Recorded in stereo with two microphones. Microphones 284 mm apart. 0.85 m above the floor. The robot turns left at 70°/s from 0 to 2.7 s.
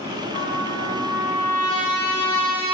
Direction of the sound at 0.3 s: 150° left.